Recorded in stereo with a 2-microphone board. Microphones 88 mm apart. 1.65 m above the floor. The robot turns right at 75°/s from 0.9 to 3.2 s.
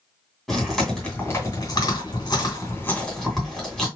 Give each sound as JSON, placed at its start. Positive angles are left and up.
{"t": 0.5, "sound": "chewing", "side_deg": 0, "distance_m": 2.0}